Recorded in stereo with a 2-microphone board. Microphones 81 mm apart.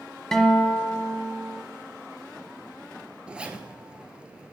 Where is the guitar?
5° left (ahead or behind), 1.0 m.